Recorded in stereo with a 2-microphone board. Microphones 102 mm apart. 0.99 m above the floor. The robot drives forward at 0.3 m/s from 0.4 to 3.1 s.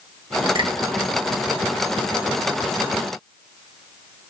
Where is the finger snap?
55° right (ahead or behind), 1.0 m; by 0.7 s 50° right (ahead or behind), 1.1 m.